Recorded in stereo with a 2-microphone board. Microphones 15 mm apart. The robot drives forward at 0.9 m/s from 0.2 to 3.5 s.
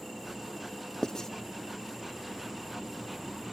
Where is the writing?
40° left (ahead or behind), 0.6 m.